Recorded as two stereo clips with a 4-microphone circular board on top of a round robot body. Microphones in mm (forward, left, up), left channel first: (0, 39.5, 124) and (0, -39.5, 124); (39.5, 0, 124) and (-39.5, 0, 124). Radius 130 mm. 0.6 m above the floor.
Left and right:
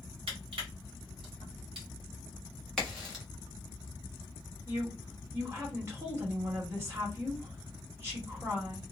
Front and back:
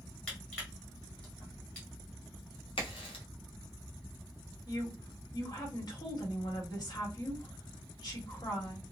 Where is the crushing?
75° right, 1.2 m.